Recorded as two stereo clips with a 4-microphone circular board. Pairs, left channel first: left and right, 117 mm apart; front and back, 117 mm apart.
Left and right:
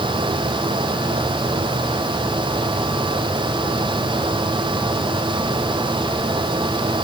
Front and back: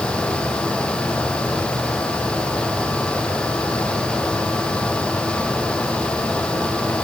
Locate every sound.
Only background noise.